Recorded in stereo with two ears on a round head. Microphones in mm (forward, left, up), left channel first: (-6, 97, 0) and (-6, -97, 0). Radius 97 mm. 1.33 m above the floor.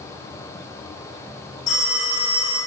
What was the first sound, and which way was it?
A phone ringing, 40° left (ahead or behind).